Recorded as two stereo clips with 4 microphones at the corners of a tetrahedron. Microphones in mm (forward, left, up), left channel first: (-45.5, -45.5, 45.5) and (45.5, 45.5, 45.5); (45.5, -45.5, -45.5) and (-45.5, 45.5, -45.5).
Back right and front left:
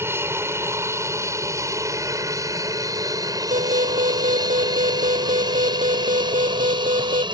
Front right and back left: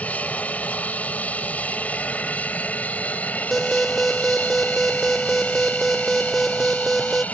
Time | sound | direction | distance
0.0 | an aircraft | 15° left | ?
3.5 | an alarm | 45° left | ?